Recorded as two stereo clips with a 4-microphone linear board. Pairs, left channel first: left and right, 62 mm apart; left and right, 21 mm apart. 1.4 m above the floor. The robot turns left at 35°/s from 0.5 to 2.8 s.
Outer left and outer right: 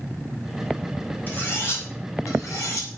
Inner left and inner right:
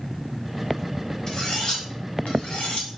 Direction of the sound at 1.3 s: 35° left (ahead or behind).